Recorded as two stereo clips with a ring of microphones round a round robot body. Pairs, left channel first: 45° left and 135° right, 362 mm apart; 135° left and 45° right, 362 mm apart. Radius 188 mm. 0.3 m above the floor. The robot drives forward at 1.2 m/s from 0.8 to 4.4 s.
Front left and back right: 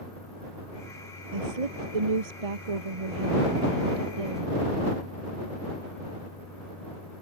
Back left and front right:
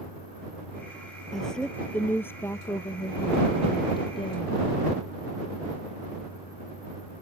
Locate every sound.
1.3 s a woman speaking: 135° right; by 4.9 s 150° right